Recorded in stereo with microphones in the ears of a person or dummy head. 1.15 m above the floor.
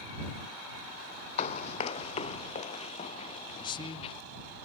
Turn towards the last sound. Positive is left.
turn(degrees=20)  # may be behind; listen again after turning